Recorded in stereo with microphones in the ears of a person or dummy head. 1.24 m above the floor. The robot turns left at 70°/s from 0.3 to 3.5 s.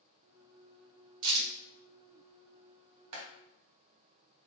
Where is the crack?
80° right, 2.5 m; by 1.5 s 75° right (ahead or behind), 2.5 m.